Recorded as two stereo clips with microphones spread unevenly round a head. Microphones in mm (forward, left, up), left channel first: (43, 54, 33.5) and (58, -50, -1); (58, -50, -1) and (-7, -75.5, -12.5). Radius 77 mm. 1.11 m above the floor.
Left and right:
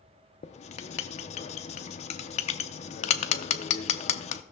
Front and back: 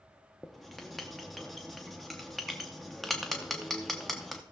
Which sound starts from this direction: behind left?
Writing, at 0.4 s.